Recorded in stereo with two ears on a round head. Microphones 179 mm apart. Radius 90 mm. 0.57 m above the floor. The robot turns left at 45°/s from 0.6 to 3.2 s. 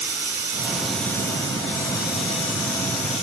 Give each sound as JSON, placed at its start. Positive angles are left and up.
{"t": 0.0, "sound": "running water", "azimuth_deg": -170, "distance_m": 7.0}